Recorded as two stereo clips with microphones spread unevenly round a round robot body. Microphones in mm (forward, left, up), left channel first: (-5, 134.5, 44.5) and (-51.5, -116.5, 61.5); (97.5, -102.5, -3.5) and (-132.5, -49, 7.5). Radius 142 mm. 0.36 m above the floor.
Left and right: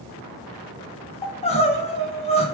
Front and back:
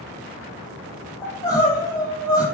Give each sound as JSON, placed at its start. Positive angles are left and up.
{"t": 1.2, "sound": "crying", "azimuth_deg": 45, "distance_m": 0.7}